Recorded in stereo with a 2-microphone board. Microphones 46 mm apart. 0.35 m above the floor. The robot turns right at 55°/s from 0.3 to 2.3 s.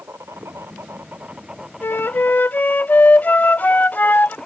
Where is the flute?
60° left (ahead or behind); by 4.4 s 45° left (ahead or behind).